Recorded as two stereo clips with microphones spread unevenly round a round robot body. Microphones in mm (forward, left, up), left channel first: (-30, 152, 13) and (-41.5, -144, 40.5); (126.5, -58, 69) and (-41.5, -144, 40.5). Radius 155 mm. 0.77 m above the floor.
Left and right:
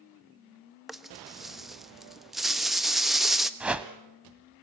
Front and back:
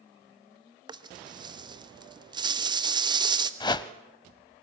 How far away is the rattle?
About 1.2 m.